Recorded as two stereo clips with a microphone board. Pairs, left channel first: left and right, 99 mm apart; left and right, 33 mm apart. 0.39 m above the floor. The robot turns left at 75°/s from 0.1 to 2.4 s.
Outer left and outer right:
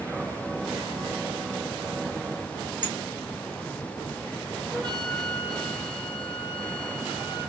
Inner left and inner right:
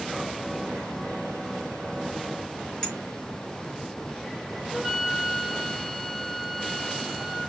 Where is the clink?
25° left (ahead or behind), 1.9 m.